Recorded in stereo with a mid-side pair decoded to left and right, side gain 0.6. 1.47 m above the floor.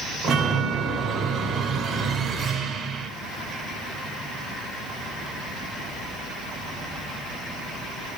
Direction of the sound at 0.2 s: 45° right.